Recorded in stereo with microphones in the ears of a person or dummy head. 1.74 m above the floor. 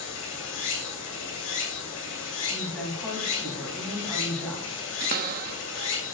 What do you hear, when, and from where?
0.0 s running water: 70° left (ahead or behind), 3.5 m
2.5 s a woman speaking: 10° left (ahead or behind), 3 m
5.0 s a cupboard door: 55° right (ahead or behind), 0.6 m